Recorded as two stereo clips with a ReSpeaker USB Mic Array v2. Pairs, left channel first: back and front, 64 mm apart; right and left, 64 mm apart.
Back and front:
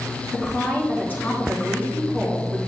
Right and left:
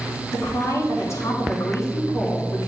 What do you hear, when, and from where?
0.3 s a woman speaking: 125° right, 3.5 m